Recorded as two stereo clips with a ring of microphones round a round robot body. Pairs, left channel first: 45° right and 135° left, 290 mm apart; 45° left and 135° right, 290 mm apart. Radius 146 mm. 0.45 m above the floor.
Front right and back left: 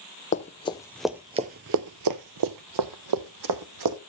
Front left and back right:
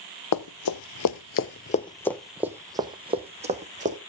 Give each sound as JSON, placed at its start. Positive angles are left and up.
{"t": 0.3, "sound": "running footsteps", "azimuth_deg": 20, "distance_m": 0.9}